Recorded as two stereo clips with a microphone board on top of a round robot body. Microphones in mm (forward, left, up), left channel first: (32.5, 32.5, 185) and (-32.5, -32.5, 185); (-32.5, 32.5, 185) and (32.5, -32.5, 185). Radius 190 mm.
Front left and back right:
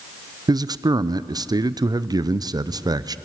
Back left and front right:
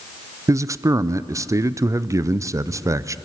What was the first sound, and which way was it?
A man speaking, 95° right.